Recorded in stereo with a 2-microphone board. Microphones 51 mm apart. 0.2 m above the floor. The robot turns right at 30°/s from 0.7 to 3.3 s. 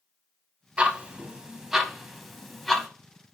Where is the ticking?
20° right (ahead or behind), 0.5 m; by 2.9 s 5° left (ahead or behind), 0.5 m.